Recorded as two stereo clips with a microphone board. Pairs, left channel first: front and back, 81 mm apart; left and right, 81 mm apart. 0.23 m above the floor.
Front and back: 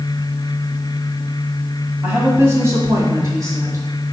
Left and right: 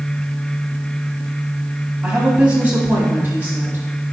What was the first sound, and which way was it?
A woman speaking, 150° right.